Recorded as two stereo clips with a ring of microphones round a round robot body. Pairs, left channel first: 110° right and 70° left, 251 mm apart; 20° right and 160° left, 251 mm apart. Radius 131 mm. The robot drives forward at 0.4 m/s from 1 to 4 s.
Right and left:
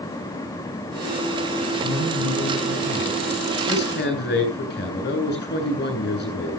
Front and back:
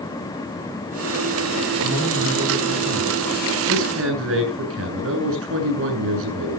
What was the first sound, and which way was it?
A man speaking, 130° left.